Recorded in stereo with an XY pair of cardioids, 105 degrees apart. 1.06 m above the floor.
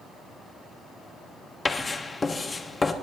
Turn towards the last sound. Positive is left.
turn(degrees=30)